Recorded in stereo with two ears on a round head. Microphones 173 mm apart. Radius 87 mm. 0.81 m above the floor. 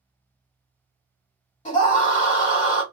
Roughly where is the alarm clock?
No alarm clock in this recording.